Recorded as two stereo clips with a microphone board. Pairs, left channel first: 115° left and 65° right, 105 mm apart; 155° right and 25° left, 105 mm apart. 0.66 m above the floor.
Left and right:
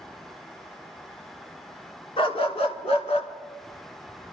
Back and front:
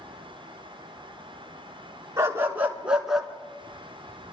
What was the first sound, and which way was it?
A dog barking, 85° left.